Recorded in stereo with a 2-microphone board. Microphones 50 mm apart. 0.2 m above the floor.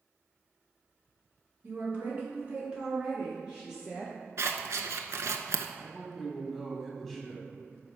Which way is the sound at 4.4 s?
75° right (ahead or behind).